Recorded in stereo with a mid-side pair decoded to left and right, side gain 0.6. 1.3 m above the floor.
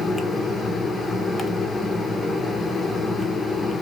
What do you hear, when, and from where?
0.0 s a fan: 20° left, 0.7 m